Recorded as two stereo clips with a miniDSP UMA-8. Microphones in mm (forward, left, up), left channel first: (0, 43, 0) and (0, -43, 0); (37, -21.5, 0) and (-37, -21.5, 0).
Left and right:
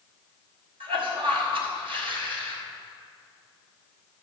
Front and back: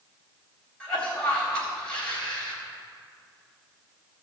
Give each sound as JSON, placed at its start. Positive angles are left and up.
{"t": 0.8, "sound": "a cough", "azimuth_deg": -75, "distance_m": 4.5}